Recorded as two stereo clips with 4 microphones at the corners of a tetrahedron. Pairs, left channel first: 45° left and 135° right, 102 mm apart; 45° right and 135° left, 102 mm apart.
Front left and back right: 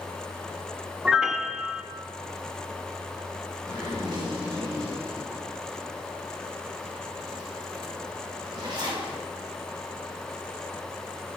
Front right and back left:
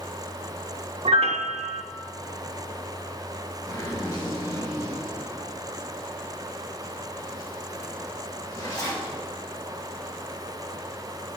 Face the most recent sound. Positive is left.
turn(degrees=-95)